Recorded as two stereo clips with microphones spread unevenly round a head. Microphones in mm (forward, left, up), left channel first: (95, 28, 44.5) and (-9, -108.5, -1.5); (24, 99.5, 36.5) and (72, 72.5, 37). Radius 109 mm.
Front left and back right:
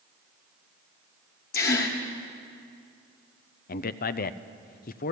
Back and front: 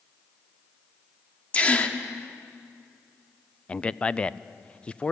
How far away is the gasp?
About 1.5 m.